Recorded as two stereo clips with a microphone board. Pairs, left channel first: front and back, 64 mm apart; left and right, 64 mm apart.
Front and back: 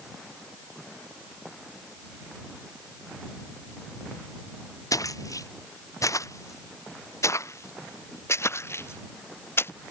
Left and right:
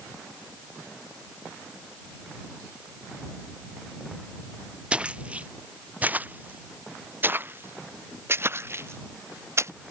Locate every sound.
4.9 s footsteps: 15° right; by 9.7 s 45° right